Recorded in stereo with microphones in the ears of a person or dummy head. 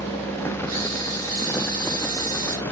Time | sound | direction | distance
0.7 | a camera shutter | 30° right (ahead or behind) | 2 m